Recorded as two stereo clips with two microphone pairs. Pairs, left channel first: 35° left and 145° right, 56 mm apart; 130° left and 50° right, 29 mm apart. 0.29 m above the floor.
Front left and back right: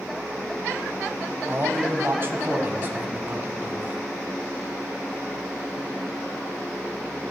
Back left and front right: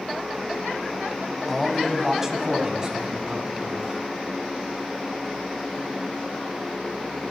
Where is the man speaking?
135° right, 1.3 m; by 4.0 s 95° right, 2 m.